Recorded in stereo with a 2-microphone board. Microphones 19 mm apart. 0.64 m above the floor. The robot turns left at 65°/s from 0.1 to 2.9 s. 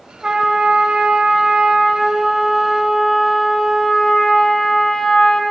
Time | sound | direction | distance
0.2 | a trumpet | 30° right | 1.8 m